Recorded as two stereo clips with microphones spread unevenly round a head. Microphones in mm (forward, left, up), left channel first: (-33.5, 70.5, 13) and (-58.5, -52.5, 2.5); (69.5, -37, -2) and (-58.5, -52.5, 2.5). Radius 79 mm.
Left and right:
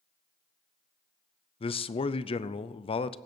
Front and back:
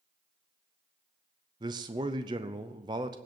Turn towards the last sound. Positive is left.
turn(degrees=120)